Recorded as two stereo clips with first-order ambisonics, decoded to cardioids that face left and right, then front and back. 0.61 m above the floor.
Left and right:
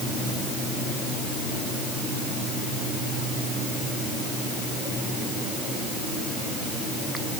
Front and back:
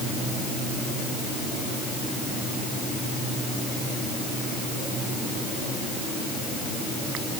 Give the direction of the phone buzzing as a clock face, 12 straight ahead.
I don't hear a phone buzzing.